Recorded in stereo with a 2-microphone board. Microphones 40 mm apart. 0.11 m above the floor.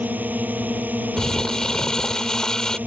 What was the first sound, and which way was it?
A drone, 45° right (ahead or behind).